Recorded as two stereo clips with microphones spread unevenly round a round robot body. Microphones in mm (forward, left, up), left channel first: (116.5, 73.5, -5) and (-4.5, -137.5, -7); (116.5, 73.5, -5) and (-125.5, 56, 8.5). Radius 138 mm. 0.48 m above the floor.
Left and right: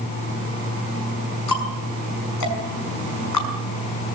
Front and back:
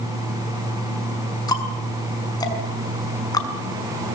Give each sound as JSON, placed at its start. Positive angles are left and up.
{"t": 1.5, "sound": "ticking", "azimuth_deg": 80, "distance_m": 6.0}